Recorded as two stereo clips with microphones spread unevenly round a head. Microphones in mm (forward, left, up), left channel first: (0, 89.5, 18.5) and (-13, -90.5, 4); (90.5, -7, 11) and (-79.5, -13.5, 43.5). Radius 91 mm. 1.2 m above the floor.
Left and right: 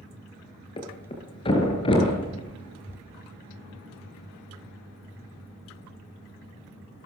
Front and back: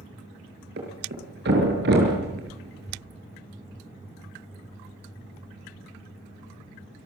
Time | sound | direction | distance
0.8 | a thud | 150° left | 6 m